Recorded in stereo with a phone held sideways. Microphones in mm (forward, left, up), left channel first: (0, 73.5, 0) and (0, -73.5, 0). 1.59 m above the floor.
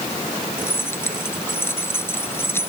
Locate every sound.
0.6 s keys jangling: 15° left (ahead or behind)